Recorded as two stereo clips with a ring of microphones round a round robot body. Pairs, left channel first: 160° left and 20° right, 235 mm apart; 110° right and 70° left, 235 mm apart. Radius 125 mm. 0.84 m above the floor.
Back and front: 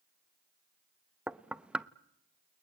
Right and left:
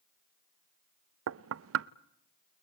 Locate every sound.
1.3 s knocking: 65° left, 0.7 m